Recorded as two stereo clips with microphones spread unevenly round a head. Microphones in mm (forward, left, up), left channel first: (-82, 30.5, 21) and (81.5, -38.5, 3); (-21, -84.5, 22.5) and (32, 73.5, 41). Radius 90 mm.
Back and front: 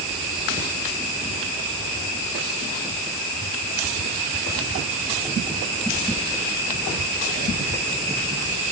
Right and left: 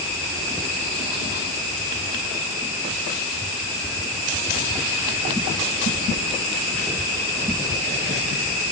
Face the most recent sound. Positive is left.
No sound to turn to.